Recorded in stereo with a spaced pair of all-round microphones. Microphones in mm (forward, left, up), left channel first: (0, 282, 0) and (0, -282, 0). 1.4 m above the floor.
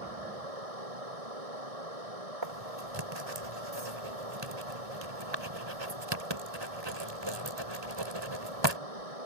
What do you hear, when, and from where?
0.0 s running water: 90° right
2.4 s writing: 50° right (ahead or behind)